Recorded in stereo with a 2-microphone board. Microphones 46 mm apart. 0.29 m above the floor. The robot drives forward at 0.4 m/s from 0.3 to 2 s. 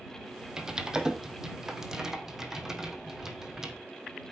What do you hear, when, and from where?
0.6 s typing on a keyboard: 15° right (ahead or behind), 2 m; by 3.7 s 10° right (ahead or behind), 2.5 m